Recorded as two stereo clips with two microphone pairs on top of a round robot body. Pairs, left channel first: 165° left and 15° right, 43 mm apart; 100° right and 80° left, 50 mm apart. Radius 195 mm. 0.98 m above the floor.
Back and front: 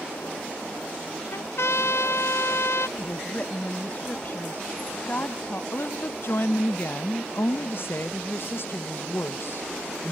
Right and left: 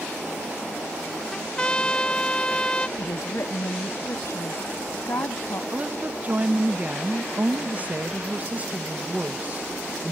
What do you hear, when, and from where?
1.3 s a trumpet: 175° right
3.0 s a woman speaking: 140° right
5.7 s a woman speaking: 135° left